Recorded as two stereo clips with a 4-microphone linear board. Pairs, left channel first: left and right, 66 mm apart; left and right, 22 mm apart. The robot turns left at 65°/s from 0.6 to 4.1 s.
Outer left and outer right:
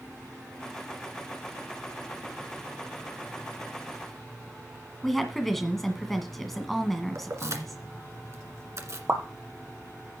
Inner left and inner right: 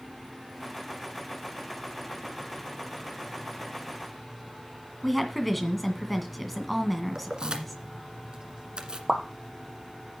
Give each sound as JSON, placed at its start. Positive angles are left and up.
{"t": 5.0, "sound": "a woman speaking", "side_deg": 5, "distance_m": 1.9}
{"t": 7.2, "sound": "keys jangling", "side_deg": -50, "distance_m": 1.5}
{"t": 9.1, "sound": "a pop", "side_deg": -45, "distance_m": 1.7}